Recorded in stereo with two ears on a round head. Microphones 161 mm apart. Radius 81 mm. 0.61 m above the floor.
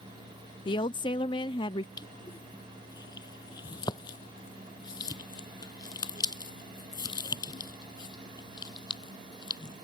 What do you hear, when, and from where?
0.7 s a woman speaking: 25° left (ahead or behind)
2.0 s crushing: 20° left (ahead or behind)